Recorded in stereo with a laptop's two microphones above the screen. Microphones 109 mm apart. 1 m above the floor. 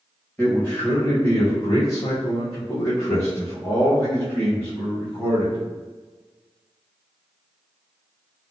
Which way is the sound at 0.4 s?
15° left (ahead or behind).